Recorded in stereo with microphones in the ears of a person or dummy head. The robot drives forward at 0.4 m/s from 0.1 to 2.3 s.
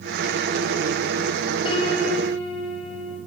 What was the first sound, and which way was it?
A piano, 30° left (ahead or behind).